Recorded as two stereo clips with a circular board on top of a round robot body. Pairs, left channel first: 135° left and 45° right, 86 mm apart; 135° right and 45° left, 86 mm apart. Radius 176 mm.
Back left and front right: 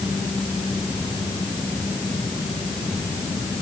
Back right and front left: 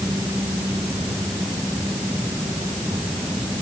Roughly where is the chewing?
No chewing in this recording.